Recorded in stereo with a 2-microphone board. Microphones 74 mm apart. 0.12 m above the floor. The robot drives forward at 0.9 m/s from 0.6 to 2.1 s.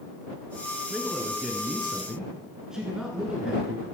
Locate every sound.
0.9 s a man speaking: 10° right (ahead or behind), 1.1 m